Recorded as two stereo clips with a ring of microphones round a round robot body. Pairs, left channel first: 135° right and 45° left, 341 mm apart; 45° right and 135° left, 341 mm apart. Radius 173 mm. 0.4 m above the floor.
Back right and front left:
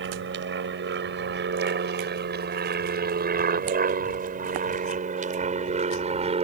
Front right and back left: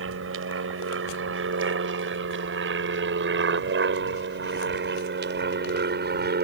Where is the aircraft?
95° left; by 6.4 s 105° left.